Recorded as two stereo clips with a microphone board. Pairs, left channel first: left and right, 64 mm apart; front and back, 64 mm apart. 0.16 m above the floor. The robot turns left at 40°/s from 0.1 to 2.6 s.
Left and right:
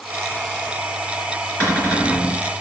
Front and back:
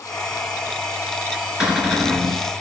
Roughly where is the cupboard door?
Left.